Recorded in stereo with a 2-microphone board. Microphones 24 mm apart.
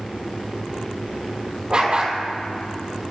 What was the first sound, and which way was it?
A dog barking, 35° right (ahead or behind).